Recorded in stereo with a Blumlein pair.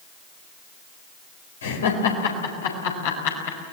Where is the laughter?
65° left, 4 m; by 3.6 s 55° left, 5.5 m.